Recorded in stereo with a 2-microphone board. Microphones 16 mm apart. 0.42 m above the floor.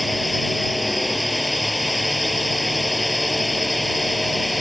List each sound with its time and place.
0.0 s a drone: centre (ahead or behind)